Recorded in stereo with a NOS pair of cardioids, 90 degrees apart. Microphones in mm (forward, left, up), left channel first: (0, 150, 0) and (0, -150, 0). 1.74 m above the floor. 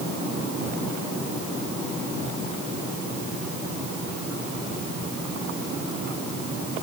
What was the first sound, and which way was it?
Only background noise.